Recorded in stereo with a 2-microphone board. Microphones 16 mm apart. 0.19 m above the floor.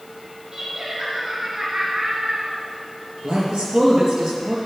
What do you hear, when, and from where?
0.5 s laughter: 40° right (ahead or behind), 2.5 m; by 2.6 s 60° right (ahead or behind), 2 m
3.2 s a man speaking: 50° right (ahead or behind), 4 m